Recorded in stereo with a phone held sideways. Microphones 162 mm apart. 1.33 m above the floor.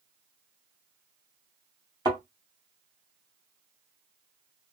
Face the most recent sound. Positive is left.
turn(degrees=-25)  # may be behind; listen again after turning